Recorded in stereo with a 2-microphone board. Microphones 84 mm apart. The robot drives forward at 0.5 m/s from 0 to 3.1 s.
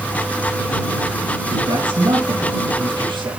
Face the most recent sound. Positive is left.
turn(degrees=-70)  # may be behind; listen again after turning